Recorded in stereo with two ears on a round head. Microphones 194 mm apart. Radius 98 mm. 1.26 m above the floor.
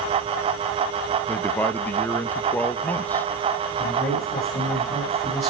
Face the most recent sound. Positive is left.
turn(degrees=10)  # may be behind; listen again after turning